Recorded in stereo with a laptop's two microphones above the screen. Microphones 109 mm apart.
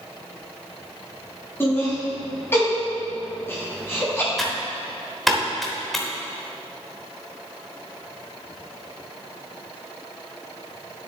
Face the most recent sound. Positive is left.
turn(degrees=0)  # may be behind; listen again after turning